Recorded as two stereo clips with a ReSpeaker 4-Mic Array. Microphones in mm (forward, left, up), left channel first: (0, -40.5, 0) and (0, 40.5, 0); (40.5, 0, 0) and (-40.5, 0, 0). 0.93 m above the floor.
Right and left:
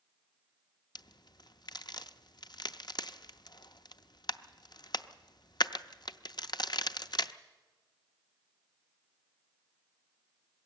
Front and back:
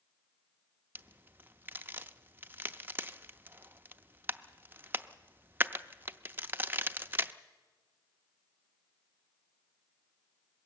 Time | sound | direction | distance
0.9 | a crack | 115° right | 0.6 m